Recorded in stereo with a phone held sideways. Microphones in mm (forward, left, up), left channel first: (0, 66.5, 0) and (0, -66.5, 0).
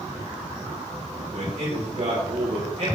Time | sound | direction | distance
1.3 | a man speaking | 85° right | 4 m